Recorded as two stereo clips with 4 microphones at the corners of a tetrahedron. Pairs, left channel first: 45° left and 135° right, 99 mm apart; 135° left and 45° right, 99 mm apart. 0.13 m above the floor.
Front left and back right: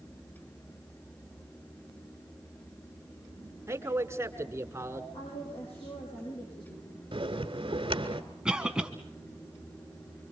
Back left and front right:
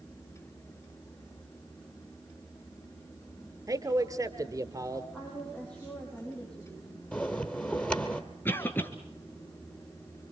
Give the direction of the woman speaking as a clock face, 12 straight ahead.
10 o'clock.